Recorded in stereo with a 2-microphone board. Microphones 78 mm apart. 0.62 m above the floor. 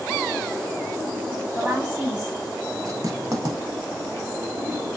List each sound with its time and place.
1.6 s a woman speaking: 10° right (ahead or behind), 1.2 m
2.9 s writing: 50° right (ahead or behind), 0.7 m